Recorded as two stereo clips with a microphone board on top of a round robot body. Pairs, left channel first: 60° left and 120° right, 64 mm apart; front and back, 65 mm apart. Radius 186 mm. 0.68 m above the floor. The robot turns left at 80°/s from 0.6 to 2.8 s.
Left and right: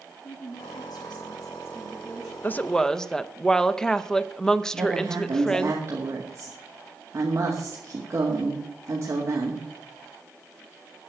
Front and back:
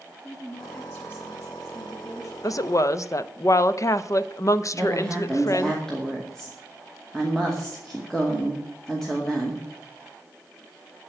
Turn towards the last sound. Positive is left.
turn(degrees=-80)